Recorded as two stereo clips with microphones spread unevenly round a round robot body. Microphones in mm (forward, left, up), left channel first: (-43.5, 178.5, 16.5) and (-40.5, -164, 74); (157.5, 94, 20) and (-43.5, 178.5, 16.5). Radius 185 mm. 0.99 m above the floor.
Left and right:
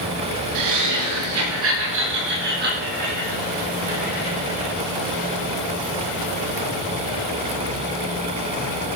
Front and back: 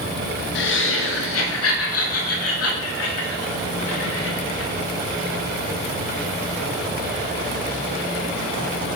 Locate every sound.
0.6 s laughter: 60° right, 1.4 m; by 4.7 s 15° right, 5 m